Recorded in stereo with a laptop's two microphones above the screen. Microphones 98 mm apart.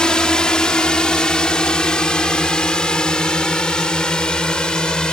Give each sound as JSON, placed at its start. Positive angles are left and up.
{"t": 0.0, "sound": "a drone", "side_deg": 10}